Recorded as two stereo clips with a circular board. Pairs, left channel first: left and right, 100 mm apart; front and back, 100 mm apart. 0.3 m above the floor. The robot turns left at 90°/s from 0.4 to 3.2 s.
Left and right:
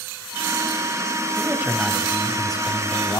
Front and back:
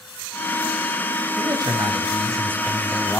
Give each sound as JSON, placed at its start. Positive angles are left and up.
{"t": 1.4, "sound": "a man speaking", "azimuth_deg": -135, "distance_m": 2.5}